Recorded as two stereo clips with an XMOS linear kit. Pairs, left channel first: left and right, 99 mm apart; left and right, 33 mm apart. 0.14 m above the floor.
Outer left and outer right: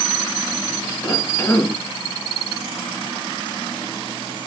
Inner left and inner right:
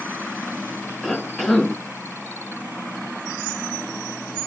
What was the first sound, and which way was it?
A cough, 15° left (ahead or behind).